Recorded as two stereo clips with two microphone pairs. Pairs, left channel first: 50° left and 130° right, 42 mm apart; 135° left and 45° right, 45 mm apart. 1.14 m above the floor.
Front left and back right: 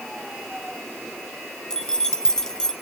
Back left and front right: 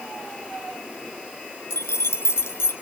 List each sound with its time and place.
1.7 s keys jangling: 130° left, 2 m